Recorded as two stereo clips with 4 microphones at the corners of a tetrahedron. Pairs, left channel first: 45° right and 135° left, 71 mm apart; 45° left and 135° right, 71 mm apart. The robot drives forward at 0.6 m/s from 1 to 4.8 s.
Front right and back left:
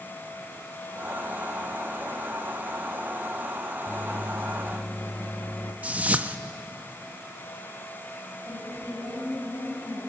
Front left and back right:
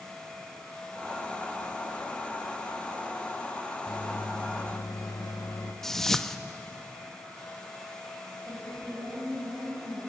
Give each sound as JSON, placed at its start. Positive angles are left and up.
{"t": 3.9, "sound": "a microwave", "azimuth_deg": 15, "distance_m": 2.0}
{"t": 5.8, "sound": "a whoosh", "azimuth_deg": 115, "distance_m": 0.8}
{"t": 8.4, "sound": "a woman speaking", "azimuth_deg": -85, "distance_m": 9.0}